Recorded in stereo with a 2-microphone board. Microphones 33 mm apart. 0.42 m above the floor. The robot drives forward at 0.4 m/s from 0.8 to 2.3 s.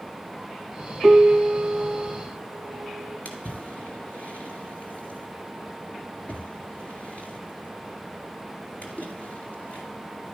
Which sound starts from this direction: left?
A splash, at 3.2 s.